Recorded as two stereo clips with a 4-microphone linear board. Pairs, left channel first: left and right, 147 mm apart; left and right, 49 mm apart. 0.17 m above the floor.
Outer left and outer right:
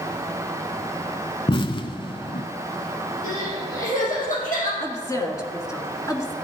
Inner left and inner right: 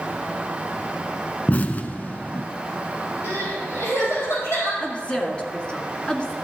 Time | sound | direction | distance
1.5 | an explosion | 35° left (ahead or behind) | 0.7 m
3.2 | crying | 65° left (ahead or behind) | 5 m
4.8 | a woman speaking | 20° left (ahead or behind) | 1.9 m